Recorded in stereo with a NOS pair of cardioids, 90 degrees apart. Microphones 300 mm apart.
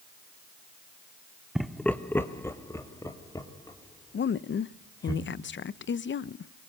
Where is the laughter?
Straight ahead, 0.6 m; by 5.1 s 15° left, 4 m.